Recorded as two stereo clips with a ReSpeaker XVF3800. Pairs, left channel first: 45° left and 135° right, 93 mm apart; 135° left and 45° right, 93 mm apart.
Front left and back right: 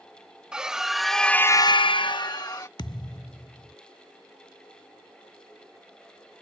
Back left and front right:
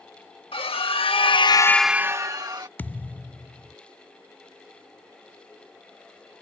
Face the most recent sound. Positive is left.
turn(degrees=65)